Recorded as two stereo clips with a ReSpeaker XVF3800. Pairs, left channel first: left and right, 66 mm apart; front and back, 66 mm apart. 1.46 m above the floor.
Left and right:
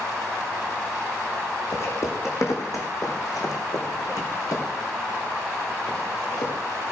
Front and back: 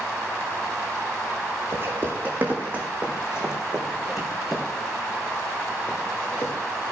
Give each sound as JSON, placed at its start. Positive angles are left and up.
{"t": 1.7, "sound": "footsteps", "azimuth_deg": 130, "distance_m": 4.0}